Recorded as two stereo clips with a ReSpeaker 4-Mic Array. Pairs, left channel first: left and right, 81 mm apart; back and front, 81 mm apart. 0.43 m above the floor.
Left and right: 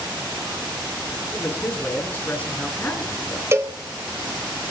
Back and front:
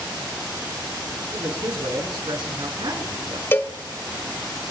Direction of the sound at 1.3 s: 20° left.